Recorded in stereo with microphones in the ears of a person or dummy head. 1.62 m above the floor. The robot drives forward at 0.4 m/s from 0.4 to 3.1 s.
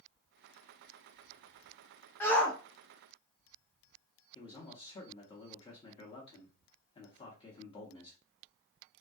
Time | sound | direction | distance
2.2 | a shout | 10° left (ahead or behind) | 0.7 m
4.3 | a man speaking | 25° left (ahead or behind) | 0.7 m